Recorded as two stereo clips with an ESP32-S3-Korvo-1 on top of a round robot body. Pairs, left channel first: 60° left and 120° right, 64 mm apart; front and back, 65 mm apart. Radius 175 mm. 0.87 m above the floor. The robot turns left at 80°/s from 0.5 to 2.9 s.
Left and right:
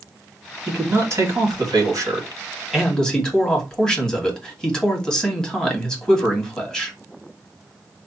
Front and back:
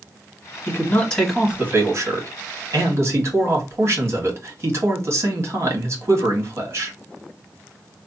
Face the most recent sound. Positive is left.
turn(degrees=140)